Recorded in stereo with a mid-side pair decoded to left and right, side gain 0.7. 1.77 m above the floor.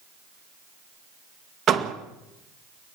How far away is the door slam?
About 2 m.